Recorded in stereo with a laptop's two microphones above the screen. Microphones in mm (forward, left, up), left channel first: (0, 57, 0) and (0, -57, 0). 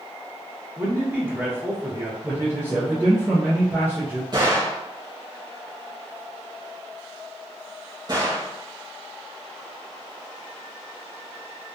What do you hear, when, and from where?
0.8 s a man speaking: 20° right (ahead or behind), 0.9 m
2.2 s a man speaking: 20° right (ahead or behind), 0.6 m
4.3 s a gunshot: 40° right (ahead or behind), 1.0 m